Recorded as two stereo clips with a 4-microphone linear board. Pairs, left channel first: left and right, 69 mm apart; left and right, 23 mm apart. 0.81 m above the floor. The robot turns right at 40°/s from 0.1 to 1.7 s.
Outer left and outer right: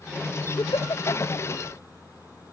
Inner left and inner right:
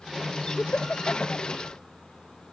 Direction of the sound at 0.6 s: 70° left (ahead or behind).